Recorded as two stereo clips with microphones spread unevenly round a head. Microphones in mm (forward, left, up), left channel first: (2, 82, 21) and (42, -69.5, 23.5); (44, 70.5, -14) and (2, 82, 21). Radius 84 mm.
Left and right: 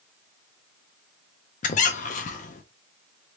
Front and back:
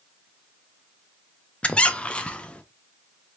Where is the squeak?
85° left, 0.5 m.